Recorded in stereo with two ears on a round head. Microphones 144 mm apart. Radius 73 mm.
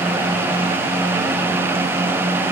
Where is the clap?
I don't hear a clap.